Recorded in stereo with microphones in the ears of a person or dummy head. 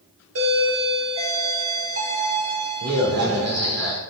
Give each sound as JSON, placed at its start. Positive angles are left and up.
{"t": 0.3, "sound": "a doorbell", "side_deg": -85, "distance_m": 4.0}